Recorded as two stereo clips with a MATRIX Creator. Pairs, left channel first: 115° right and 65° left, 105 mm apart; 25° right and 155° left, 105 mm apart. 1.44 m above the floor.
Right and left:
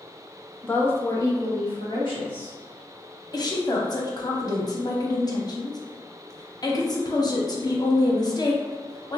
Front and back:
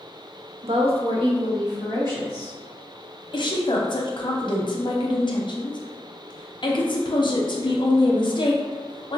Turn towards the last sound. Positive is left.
turn(degrees=-60)